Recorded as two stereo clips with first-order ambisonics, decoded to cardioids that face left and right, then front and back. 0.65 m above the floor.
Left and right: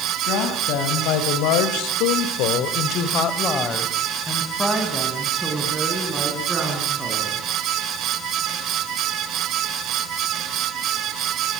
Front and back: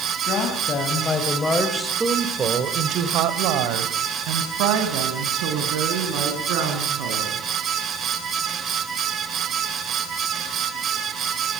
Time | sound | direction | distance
0.3 | a woman speaking | 60° left | 4 m